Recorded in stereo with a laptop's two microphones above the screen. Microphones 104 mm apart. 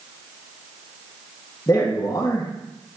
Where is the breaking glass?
No breaking glass in this recording.